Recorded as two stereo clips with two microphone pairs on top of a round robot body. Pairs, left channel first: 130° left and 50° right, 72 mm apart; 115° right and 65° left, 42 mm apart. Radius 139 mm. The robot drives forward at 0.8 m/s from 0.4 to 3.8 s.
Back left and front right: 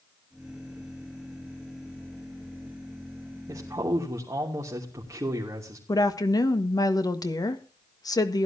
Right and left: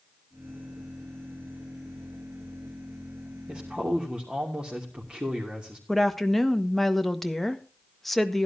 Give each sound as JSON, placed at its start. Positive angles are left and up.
{"t": 3.5, "sound": "a man speaking", "azimuth_deg": -5, "distance_m": 3.0}
{"t": 5.9, "sound": "a woman speaking", "azimuth_deg": 155, "distance_m": 1.7}